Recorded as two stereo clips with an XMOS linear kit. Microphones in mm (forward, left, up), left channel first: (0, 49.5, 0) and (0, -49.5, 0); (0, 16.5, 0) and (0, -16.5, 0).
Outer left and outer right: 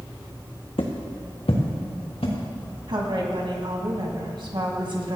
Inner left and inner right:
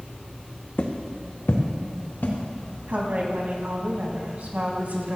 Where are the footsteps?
65° left (ahead or behind), 1.9 m.